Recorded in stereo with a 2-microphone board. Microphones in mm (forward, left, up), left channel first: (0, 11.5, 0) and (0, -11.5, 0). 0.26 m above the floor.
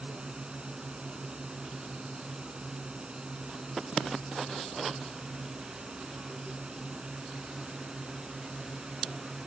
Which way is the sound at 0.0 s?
45° right (ahead or behind).